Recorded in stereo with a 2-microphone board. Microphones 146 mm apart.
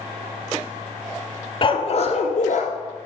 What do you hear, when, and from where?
1.6 s a dog barking: 40° left (ahead or behind), 1.0 m; by 2.7 s 75° left (ahead or behind), 1.5 m